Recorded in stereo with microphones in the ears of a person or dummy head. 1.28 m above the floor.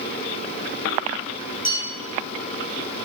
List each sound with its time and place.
1.6 s a bell: 40° left (ahead or behind), 0.7 m